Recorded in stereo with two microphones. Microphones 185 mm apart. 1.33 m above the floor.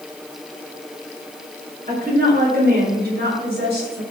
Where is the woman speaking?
50° right (ahead or behind), 5.5 m; by 4.0 s 60° right (ahead or behind), 7.5 m.